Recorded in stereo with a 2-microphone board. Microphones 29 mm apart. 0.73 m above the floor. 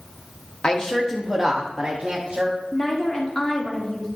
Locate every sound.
0.6 s a woman speaking: 30° left (ahead or behind), 0.8 m; by 2.6 s 35° right (ahead or behind), 1.2 m
2.7 s a woman speaking: 20° left (ahead or behind), 1.7 m